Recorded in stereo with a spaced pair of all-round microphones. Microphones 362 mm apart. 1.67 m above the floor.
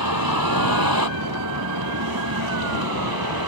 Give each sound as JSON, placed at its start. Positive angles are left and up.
{"t": 0.0, "sound": "a vehicle", "side_deg": -70}